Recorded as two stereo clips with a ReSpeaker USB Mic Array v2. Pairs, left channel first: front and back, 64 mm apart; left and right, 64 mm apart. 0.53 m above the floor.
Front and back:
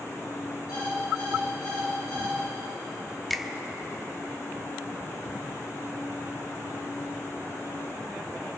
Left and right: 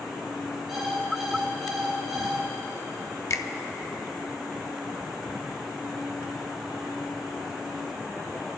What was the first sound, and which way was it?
An alarm clock, 5° right.